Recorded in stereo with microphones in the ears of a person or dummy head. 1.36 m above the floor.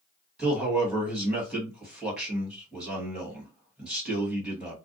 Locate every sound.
0.4 s a man speaking: centre (ahead or behind), 1.3 m